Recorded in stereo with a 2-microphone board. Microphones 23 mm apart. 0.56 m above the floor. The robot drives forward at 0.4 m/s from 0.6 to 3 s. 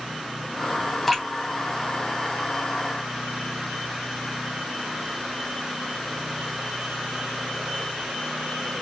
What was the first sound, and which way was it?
Dripping, 5° left (ahead or behind).